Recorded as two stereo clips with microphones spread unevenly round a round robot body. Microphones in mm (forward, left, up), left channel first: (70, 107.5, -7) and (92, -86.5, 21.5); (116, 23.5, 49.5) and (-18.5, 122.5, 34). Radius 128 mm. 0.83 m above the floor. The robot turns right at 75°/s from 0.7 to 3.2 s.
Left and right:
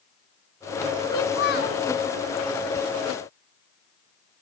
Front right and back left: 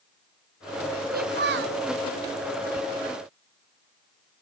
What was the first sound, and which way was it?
A child speaking, 115° left.